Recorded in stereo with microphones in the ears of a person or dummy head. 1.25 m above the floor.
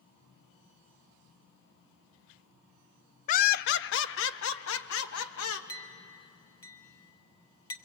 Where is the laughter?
35° left (ahead or behind), 0.5 m; by 5.6 s 75° left (ahead or behind), 1.8 m.